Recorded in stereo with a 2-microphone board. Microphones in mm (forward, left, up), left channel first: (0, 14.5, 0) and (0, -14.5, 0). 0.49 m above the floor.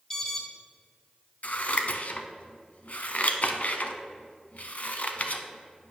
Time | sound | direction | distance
0.1 | an alarm | 20° left (ahead or behind) | 1.8 m
1.4 | scissors | 55° left (ahead or behind) | 0.9 m